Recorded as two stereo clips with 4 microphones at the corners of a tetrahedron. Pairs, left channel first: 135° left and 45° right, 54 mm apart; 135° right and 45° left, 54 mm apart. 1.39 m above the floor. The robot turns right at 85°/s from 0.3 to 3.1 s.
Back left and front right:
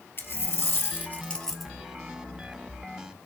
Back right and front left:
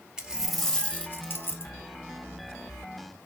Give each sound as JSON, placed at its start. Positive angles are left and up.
{"t": 0.2, "sound": "a dropped coin", "azimuth_deg": 115, "distance_m": 1.8}